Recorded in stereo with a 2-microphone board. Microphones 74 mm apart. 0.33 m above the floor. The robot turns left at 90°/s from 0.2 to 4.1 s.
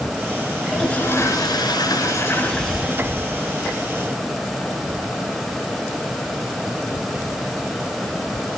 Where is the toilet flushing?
170° right, 5.5 m; by 3.1 s 40° right, 5.5 m.